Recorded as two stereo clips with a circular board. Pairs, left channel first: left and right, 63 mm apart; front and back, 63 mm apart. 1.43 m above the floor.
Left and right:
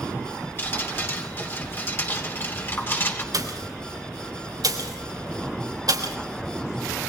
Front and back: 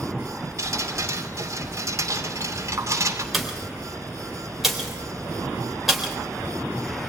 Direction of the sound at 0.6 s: 145° left.